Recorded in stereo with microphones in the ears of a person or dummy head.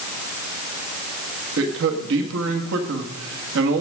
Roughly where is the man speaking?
Right.